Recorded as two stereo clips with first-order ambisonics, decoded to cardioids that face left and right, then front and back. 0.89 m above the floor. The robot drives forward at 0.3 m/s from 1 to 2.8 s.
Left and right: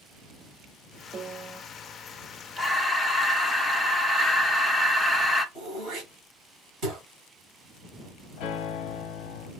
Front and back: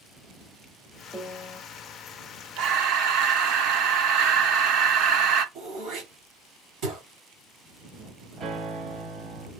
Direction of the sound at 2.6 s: Straight behind.